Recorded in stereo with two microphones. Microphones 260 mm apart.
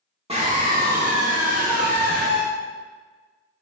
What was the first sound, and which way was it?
A scream, 20° right (ahead or behind).